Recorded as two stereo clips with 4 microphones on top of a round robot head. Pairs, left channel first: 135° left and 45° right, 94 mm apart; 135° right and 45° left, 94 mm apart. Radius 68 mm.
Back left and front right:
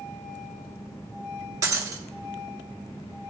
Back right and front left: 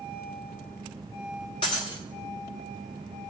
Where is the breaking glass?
95° right, 1.0 m.